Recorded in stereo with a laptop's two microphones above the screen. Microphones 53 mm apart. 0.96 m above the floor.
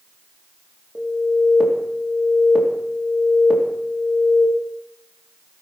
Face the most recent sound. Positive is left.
turn(degrees=-5)  # may be behind; listen again after turning